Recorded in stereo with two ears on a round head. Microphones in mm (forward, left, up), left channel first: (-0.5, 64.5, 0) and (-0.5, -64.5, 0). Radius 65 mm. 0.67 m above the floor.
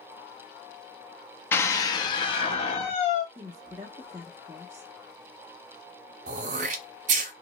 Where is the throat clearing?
55° right (ahead or behind), 0.6 m.